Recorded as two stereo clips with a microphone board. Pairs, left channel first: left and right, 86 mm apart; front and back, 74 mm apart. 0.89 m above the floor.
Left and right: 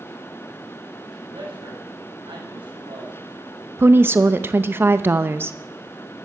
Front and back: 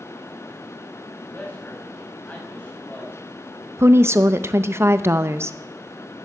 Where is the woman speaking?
140° right, 0.6 m.